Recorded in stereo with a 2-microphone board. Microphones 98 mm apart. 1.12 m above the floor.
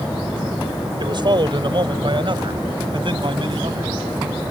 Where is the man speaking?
50° right (ahead or behind); by 4.0 s 55° right (ahead or behind).